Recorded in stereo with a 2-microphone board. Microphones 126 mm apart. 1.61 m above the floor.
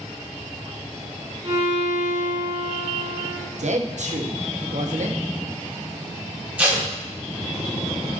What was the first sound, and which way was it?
A violin, 55° right (ahead or behind).